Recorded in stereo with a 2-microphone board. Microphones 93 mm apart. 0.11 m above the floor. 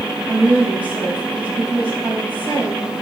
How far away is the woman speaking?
About 5 m.